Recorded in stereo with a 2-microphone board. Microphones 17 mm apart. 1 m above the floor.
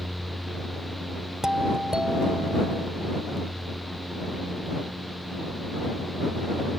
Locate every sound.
1.4 s a doorbell: 40° right (ahead or behind)